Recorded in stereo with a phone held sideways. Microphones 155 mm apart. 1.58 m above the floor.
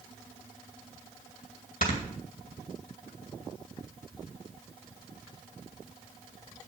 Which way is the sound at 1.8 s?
65° left (ahead or behind).